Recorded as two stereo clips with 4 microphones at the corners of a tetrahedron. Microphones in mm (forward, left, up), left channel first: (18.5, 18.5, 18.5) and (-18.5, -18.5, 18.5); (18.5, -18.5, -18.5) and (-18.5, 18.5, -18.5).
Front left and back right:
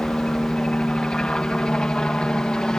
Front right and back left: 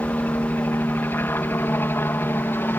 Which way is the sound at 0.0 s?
20° right.